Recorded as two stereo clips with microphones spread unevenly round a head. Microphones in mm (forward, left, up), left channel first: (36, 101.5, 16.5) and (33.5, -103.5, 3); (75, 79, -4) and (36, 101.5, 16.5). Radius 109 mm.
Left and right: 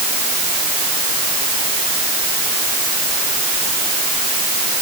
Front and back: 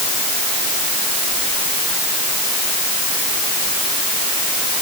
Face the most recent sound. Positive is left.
No sound to turn to.